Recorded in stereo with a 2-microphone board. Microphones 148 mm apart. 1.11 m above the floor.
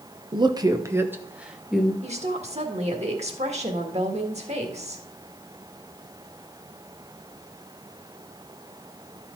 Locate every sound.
0.3 s a woman speaking: 35° right (ahead or behind), 0.8 m; by 1.9 s centre (ahead or behind), 1.2 m
2.0 s a woman speaking: 45° right (ahead or behind), 1.6 m